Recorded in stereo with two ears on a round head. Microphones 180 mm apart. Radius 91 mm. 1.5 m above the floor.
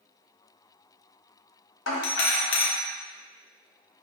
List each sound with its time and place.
1.9 s a doorbell: 60° left (ahead or behind), 0.9 m